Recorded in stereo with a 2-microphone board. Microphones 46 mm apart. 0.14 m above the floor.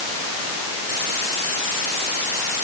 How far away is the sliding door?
I don't hear a sliding door.